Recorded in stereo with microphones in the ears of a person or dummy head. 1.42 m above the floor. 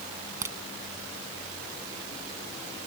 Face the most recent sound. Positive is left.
turn(degrees=-15)  # may be behind; listen again after turning